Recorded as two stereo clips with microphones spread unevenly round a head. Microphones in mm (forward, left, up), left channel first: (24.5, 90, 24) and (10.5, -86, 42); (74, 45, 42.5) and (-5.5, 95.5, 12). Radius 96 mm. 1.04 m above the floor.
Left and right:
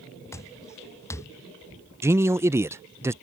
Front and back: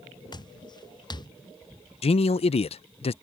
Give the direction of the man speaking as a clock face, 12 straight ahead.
1 o'clock.